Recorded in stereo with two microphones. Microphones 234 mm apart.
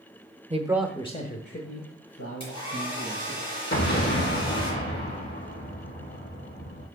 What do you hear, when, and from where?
0.5 s a man speaking: 30° right (ahead or behind), 1.0 m; by 3.4 s 75° left (ahead or behind), 4 m
2.4 s a hair dryer: 20° left (ahead or behind), 4.5 m
3.7 s an explosion: 45° left (ahead or behind), 4 m